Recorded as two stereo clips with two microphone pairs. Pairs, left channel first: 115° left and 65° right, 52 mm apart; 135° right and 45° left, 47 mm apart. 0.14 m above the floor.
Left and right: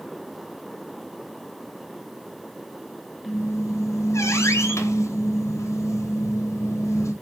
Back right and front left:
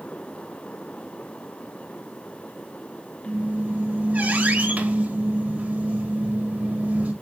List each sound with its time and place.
3.2 s a squeak: 100° left, 3.5 m